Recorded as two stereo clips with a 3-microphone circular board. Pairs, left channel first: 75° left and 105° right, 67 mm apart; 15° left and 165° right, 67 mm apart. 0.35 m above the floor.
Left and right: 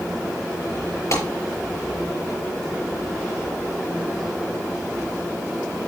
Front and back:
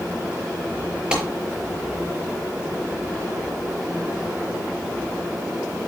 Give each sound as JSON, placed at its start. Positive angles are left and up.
{"t": 1.1, "sound": "a clap", "azimuth_deg": 115, "distance_m": 5.5}